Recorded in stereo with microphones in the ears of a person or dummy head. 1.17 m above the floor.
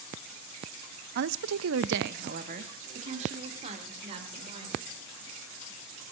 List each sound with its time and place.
1.1 s a woman speaking: 55° right (ahead or behind), 0.7 m; by 4.9 s 30° right (ahead or behind), 4.5 m